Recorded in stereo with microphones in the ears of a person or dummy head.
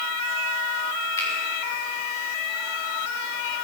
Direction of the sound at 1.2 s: 10° left (ahead or behind).